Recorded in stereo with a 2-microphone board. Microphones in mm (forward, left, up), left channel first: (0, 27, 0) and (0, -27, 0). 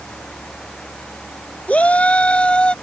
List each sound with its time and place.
1.7 s a shout: 25° left (ahead or behind); by 2.7 s 20° left (ahead or behind)